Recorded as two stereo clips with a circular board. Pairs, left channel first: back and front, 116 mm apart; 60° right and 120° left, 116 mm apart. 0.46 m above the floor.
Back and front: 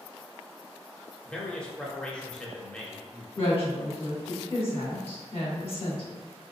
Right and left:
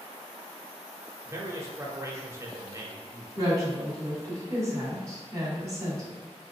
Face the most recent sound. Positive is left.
turn(degrees=180)